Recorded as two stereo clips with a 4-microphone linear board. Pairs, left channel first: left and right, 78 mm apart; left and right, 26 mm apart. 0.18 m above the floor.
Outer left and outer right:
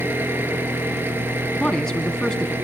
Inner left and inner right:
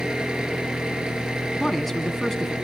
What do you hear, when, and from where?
0.0 s an engine running: 30° right (ahead or behind), 2.5 m
1.6 s a man speaking: 10° left (ahead or behind), 1.8 m